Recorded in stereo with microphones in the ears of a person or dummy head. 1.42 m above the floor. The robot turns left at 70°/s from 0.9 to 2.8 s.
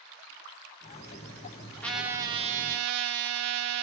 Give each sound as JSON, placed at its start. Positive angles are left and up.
{"t": 1.8, "sound": "a trumpet", "azimuth_deg": 10, "distance_m": 0.7}